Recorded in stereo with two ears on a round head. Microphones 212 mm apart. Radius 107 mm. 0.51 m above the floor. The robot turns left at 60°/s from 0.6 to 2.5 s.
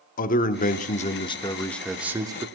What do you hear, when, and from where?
0.2 s a man speaking: 80° left, 0.8 m; by 2.5 s 35° right, 0.8 m